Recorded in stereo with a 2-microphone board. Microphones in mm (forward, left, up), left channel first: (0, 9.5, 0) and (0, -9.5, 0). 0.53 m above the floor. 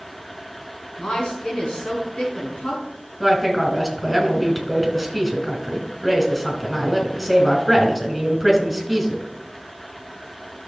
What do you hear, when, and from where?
1.0 s a woman speaking: 65° left (ahead or behind), 4.5 m
3.2 s a woman speaking: centre (ahead or behind), 3 m